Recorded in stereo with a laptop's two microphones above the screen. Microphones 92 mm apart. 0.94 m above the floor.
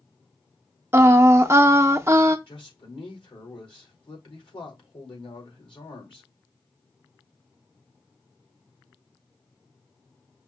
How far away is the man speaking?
About 2.5 m.